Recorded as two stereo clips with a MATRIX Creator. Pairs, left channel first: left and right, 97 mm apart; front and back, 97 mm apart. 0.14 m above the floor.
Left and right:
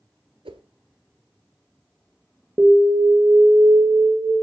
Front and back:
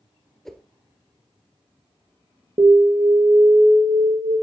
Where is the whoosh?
85° right, 1.0 m.